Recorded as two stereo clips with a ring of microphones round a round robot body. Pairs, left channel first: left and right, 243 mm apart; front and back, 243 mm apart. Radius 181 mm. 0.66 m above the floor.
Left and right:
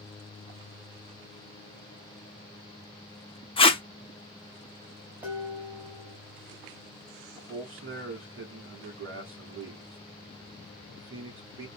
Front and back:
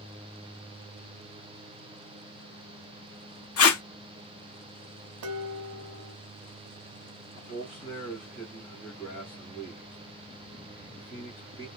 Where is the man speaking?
70° right, 2 m.